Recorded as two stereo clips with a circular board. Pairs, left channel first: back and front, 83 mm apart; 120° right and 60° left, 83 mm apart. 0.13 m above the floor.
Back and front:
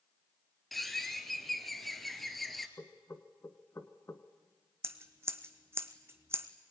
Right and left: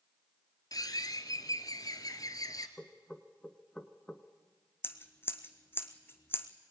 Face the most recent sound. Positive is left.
turn(degrees=-60)